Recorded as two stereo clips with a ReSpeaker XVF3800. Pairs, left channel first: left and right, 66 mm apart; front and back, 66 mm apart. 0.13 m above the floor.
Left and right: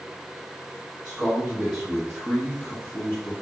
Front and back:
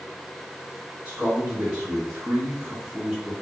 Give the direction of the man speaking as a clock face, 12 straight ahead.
5 o'clock.